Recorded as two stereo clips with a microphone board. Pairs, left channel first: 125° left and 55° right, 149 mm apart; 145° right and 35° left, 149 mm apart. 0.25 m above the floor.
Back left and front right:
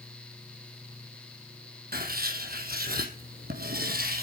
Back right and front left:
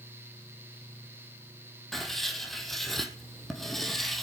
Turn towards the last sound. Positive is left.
turn(degrees=-60)